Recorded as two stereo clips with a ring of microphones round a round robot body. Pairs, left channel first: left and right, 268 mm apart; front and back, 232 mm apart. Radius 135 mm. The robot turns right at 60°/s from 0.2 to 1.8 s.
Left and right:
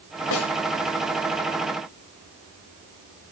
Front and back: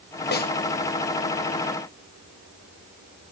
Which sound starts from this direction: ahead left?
A snare drum, at 0.3 s.